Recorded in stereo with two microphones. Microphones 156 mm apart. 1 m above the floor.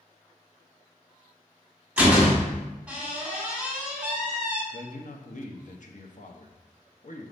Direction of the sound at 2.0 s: 10° right (ahead or behind).